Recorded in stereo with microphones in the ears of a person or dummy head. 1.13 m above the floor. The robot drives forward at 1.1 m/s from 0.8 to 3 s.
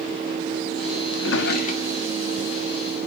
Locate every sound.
1.1 s a drawer: 70° left (ahead or behind), 0.6 m; by 2.4 s 20° left (ahead or behind), 1.5 m